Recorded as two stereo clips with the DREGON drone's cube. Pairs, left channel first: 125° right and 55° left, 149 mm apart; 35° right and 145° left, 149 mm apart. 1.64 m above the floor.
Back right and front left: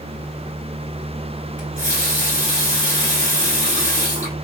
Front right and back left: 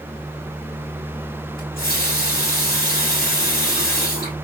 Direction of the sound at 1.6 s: 25° right.